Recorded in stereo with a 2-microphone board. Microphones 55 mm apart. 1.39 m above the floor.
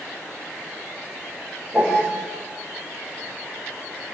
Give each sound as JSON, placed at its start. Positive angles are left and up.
{"t": 1.7, "sound": "a piano", "side_deg": -20, "distance_m": 5.5}